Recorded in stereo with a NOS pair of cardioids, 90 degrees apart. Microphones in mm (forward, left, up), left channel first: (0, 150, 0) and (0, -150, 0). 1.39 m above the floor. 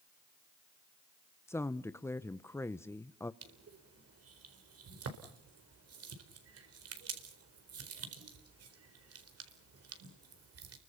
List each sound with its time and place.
1.5 s a woman speaking: 10° left, 0.8 m
3.4 s crushing: 50° right, 4 m